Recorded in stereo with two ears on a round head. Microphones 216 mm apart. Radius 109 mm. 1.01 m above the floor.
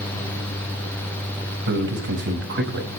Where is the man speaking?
50° right (ahead or behind), 5.5 m.